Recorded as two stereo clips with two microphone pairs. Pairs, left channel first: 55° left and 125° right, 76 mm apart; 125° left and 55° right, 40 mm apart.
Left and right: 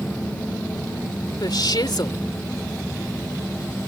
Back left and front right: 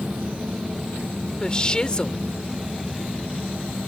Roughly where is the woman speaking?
Ahead left.